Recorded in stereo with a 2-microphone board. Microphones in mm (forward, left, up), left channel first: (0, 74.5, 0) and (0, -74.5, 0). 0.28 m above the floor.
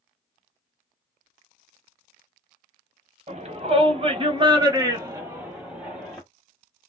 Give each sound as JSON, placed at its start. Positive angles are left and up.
{"t": 3.3, "sound": "a shout", "side_deg": -45, "distance_m": 1.4}